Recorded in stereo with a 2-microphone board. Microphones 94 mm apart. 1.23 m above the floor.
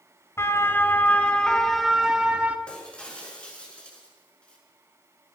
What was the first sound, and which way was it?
A siren, 30° left (ahead or behind).